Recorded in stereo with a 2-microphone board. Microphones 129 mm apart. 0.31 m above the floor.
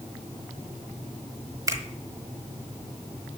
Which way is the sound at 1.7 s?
25° right (ahead or behind).